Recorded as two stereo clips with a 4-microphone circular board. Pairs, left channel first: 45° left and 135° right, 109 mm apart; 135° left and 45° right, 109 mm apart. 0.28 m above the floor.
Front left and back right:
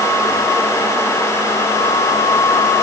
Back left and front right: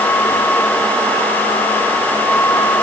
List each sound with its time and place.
Only background noise.